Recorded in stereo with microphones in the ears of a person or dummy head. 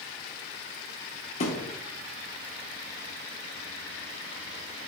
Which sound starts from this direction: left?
A thud, at 1.4 s.